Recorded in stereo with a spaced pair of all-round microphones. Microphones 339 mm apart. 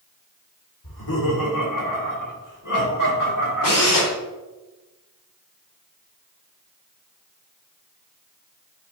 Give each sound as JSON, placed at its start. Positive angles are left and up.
{"t": 0.8, "sound": "laughter", "side_deg": 75, "distance_m": 3.0}
{"t": 3.6, "sound": "a drill", "side_deg": 75, "distance_m": 3.0}